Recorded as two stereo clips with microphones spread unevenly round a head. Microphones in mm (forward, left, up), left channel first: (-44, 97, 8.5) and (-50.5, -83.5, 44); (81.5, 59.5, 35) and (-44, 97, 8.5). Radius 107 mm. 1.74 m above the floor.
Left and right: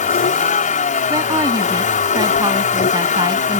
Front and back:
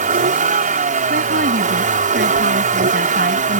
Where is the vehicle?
140° left.